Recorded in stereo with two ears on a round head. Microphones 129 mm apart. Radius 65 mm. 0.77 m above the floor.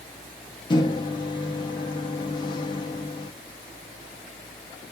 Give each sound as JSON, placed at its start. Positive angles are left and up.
{"t": 0.7, "sound": "a microwave", "side_deg": 30, "distance_m": 0.7}